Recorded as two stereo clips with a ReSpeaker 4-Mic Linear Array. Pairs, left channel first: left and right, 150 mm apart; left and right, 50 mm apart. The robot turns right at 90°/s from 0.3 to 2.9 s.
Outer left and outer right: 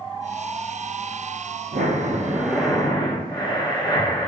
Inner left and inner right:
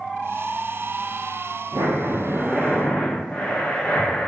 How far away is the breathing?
About 0.7 m.